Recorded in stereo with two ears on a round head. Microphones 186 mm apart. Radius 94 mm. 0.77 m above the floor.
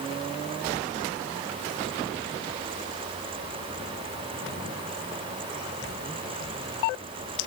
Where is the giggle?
No giggle in this recording.